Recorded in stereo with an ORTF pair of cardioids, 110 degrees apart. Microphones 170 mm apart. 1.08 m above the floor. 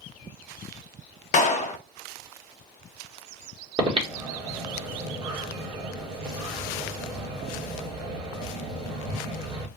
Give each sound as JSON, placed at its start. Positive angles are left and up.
{"t": 1.3, "sound": "a clap", "azimuth_deg": 50, "distance_m": 0.8}
{"t": 3.8, "sound": "breathing", "azimuth_deg": -35, "distance_m": 1.8}